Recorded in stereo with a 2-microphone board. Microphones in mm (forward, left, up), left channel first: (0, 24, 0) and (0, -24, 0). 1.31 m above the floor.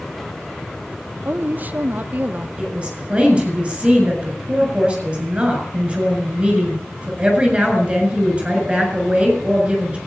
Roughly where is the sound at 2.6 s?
Right.